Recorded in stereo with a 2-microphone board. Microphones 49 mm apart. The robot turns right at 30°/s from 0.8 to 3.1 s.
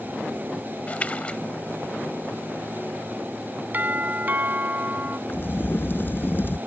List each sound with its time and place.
0.9 s a splash: 30° left (ahead or behind); by 1.4 s 25° left (ahead or behind)
3.7 s a doorbell: 40° right (ahead or behind)
5.3 s a crack: 50° left (ahead or behind)